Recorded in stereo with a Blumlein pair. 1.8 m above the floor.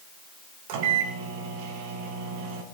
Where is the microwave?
45° right, 2.0 m.